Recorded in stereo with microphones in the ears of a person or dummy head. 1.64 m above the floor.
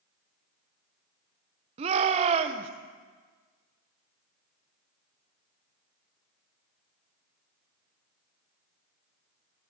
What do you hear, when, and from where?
1.8 s a shout: 35° right (ahead or behind), 0.9 m